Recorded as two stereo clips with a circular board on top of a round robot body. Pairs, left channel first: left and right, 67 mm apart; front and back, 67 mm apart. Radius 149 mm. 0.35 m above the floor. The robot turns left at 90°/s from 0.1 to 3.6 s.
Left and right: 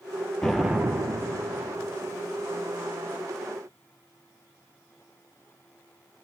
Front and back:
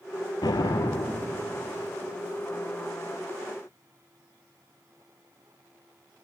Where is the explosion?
15° left, 2.5 m; by 1.4 s 75° right, 2.5 m.